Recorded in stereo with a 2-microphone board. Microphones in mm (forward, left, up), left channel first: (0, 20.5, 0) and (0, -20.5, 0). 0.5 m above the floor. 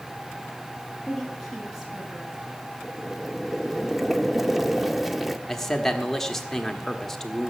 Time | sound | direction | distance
1.1 | a woman speaking | 5° right (ahead or behind) | 4.5 m
2.8 | boiling | 5° right (ahead or behind) | 0.7 m
5.5 | a man speaking | 10° left (ahead or behind) | 1.4 m